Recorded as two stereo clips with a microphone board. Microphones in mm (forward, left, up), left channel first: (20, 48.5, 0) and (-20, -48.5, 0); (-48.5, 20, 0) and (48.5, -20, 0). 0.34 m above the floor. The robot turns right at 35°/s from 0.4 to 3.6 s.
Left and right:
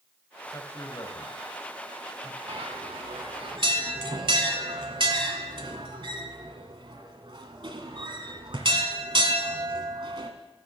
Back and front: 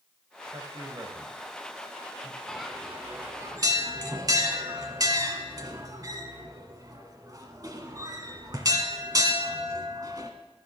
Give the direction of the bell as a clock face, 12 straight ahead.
4 o'clock.